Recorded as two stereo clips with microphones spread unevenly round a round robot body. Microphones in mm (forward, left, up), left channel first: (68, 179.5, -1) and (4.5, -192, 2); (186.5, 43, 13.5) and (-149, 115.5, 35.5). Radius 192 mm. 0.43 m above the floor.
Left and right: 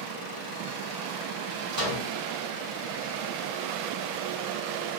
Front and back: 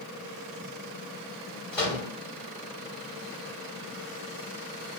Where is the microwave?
95° right, 1.1 m.